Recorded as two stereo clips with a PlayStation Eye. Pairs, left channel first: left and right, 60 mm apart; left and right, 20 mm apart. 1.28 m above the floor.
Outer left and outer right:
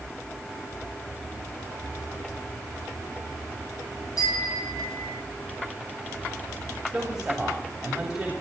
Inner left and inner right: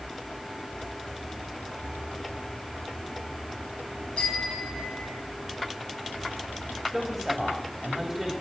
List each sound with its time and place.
4.2 s a bicycle bell: 75° left (ahead or behind), 7.5 m; by 5.2 s 85° left, 6.5 m
6.9 s a man speaking: 10° right (ahead or behind), 3.5 m